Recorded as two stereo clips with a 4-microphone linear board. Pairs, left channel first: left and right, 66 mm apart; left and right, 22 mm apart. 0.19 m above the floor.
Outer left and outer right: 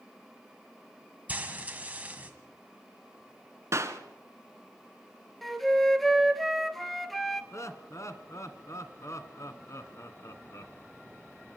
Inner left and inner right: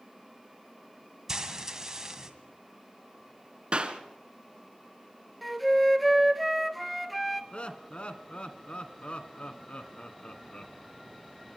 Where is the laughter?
50° left (ahead or behind), 1.7 m.